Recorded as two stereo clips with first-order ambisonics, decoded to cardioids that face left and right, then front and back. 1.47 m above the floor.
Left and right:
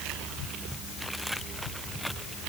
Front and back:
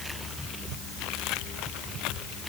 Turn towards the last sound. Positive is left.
No sound to turn to.